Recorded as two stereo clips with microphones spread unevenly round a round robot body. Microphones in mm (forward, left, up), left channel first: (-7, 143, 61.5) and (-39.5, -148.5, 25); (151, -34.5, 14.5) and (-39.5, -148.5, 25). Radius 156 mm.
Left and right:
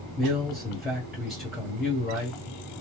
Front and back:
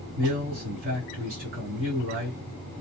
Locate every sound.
0.2 s a man speaking: straight behind, 1.9 m